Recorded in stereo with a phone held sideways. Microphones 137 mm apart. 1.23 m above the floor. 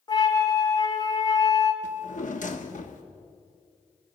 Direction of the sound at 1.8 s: 65° left (ahead or behind).